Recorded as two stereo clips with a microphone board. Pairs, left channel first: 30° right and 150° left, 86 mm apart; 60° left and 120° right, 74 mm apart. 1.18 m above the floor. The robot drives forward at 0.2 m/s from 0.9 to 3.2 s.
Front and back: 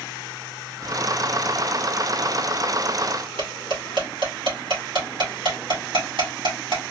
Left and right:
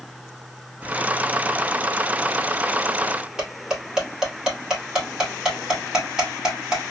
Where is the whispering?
Straight ahead, 0.6 m.